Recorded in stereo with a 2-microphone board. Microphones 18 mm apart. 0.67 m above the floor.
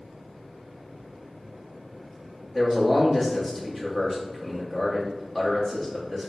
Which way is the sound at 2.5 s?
Centre (ahead or behind).